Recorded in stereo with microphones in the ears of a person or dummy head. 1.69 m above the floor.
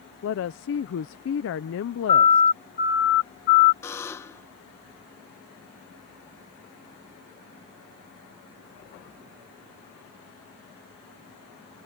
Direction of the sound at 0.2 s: 70° left (ahead or behind).